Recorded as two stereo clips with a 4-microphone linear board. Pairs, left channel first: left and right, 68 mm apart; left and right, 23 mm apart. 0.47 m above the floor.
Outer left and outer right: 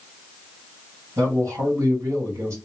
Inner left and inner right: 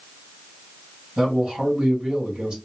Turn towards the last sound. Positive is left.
turn(degrees=-45)  # may be behind; listen again after turning